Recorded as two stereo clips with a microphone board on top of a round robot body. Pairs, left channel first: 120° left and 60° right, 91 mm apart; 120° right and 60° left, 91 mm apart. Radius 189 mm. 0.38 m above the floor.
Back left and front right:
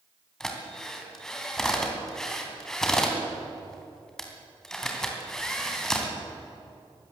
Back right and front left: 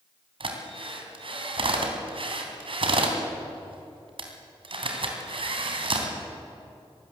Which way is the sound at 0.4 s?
35° left.